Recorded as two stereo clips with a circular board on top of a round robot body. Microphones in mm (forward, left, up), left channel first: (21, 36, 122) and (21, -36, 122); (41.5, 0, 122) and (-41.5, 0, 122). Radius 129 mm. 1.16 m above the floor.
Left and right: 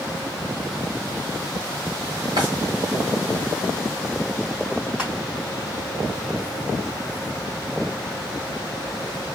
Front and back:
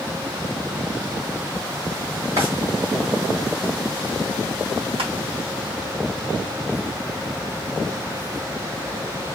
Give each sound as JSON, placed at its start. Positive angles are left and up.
{"t": 2.4, "sound": "a drawer", "azimuth_deg": -130, "distance_m": 1.1}
{"t": 5.0, "sound": "crushing", "azimuth_deg": -170, "distance_m": 1.8}